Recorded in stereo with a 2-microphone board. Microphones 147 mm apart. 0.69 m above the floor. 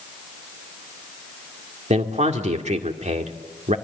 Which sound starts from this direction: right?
A man speaking, at 1.9 s.